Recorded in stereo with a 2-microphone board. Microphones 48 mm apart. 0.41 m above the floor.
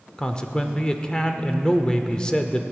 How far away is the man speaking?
About 0.8 m.